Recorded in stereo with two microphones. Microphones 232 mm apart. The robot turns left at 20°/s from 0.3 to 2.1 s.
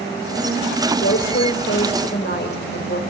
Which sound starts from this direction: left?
A woman speaking, at 0.9 s.